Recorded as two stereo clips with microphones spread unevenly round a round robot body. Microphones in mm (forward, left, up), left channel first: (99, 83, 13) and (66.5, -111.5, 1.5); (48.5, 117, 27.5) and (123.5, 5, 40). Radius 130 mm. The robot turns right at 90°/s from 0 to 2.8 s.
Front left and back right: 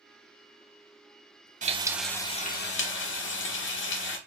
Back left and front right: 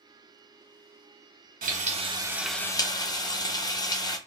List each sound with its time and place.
1.6 s frying: 45° right, 0.9 m; by 4.2 s 60° left, 0.9 m